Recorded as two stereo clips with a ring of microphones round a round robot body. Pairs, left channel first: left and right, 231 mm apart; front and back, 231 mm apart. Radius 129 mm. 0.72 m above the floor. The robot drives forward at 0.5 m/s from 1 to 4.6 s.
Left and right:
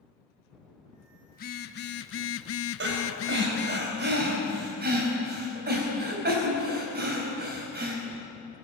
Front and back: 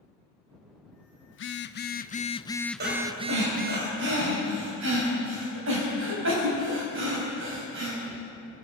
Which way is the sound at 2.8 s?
125° right.